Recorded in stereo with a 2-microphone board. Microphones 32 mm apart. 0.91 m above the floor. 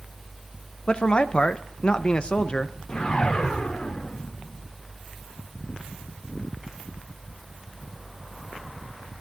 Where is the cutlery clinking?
I don't hear cutlery clinking.